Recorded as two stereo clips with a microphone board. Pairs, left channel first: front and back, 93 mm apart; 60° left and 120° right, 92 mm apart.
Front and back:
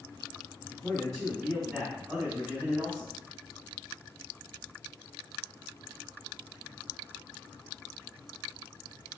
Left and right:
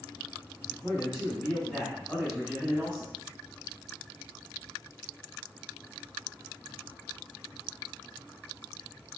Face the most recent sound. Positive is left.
turn(degrees=160)